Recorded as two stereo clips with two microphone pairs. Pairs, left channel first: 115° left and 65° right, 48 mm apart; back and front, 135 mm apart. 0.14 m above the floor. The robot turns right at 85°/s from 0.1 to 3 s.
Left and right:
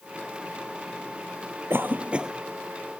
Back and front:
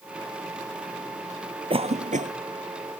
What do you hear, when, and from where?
1.7 s a cough: 40° right; by 2.3 s 15° left